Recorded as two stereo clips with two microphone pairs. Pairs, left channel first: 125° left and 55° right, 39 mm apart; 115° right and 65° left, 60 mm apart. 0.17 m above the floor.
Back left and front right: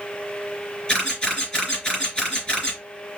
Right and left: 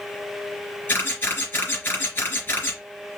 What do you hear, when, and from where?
0.9 s a camera shutter: 165° right, 3.5 m